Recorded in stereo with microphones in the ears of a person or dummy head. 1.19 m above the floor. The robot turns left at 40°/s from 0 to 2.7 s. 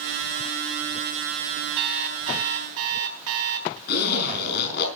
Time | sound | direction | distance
1.8 | an alarm clock | 55° right | 4 m
3.9 | a zipper | 75° left (ahead or behind) | 6 m